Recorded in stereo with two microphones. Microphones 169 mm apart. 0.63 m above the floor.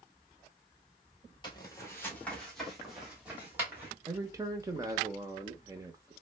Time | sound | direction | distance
1.4 | footsteps | 25° left (ahead or behind) | 1.1 m
4.1 | a man speaking | 20° right (ahead or behind) | 0.7 m